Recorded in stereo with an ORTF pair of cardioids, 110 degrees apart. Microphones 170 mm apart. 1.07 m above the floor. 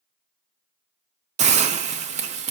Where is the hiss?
45° right, 0.6 m.